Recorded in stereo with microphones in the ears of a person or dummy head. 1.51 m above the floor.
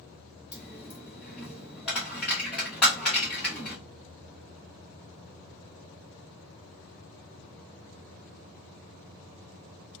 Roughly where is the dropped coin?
Centre.